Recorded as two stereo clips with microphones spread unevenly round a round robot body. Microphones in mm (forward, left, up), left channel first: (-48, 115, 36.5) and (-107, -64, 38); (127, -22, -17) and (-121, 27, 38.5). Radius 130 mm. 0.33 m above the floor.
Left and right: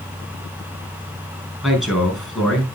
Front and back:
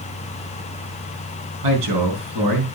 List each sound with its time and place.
1.6 s a man speaking: 165° left, 5.5 m